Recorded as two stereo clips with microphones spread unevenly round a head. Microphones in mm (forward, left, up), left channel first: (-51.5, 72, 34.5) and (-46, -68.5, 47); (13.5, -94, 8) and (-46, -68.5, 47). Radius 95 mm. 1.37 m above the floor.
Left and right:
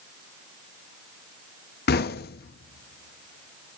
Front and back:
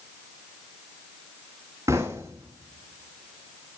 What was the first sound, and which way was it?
Knocking, 85° left.